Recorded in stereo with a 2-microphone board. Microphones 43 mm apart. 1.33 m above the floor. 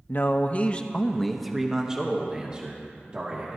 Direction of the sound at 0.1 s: 50° left (ahead or behind).